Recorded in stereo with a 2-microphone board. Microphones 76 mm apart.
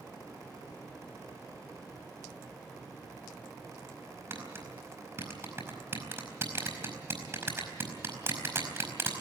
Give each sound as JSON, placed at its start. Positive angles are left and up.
{"t": 4.3, "sound": "tapping", "side_deg": -30, "distance_m": 4.5}